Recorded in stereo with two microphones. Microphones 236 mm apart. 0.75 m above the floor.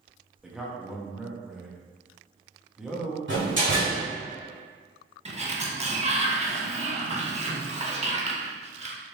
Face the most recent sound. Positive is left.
turn(degrees=-30)  # may be behind; listen again after turning